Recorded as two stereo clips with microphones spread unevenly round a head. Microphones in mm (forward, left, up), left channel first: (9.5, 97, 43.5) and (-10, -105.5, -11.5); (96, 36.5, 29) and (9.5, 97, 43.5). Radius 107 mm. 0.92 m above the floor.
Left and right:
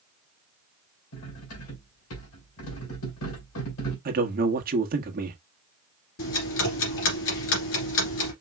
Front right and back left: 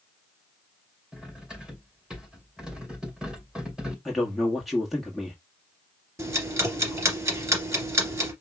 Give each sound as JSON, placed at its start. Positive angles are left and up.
{"t": 1.1, "sound": "cutlery clinking", "azimuth_deg": 65, "distance_m": 2.5}
{"t": 4.0, "sound": "a man speaking", "azimuth_deg": -120, "distance_m": 1.2}
{"t": 6.2, "sound": "ticking", "azimuth_deg": 85, "distance_m": 2.5}